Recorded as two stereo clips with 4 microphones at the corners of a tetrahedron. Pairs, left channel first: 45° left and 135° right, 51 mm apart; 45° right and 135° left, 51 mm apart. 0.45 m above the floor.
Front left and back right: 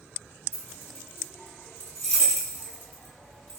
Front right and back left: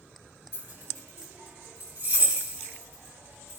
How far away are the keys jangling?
About 1.9 m.